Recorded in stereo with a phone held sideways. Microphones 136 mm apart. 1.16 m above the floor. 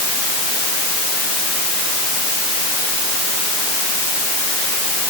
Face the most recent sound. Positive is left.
No sound to turn to.